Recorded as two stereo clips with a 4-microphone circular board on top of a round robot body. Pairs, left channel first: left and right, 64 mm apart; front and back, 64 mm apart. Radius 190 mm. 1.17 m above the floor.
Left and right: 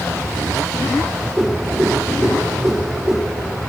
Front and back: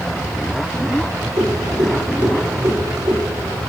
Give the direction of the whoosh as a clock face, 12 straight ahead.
5 o'clock.